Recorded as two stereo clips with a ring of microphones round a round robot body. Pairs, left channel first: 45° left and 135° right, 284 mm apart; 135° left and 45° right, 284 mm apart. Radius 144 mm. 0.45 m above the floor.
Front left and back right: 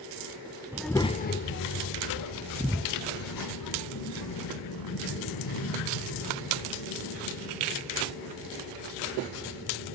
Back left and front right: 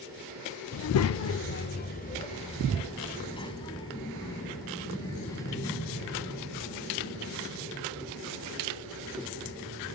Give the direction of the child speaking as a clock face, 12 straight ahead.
7 o'clock.